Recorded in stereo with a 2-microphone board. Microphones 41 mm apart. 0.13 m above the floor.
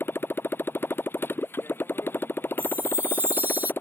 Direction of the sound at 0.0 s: 65° left (ahead or behind).